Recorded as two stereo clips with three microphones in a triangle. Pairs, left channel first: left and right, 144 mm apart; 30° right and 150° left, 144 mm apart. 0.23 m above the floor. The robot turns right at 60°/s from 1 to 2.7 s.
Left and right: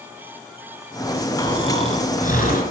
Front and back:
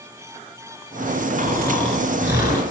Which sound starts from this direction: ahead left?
Snoring, at 1.4 s.